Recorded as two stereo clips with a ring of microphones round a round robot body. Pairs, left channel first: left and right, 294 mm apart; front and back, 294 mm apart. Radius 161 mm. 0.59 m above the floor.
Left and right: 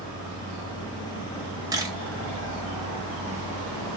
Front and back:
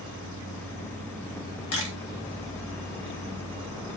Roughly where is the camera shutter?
Ahead.